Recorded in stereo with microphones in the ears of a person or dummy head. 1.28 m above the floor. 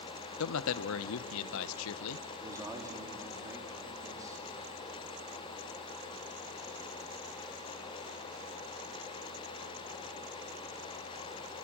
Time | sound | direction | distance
0.4 | a man speaking | 75° left (ahead or behind) | 0.8 m
2.4 | a man speaking | 15° right (ahead or behind) | 2.5 m